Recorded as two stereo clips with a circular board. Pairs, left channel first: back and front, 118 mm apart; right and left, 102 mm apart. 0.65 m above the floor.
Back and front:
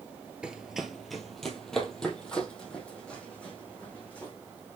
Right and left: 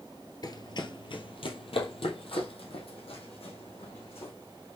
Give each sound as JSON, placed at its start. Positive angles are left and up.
{"t": 0.4, "sound": "running footsteps", "azimuth_deg": -80, "distance_m": 0.8}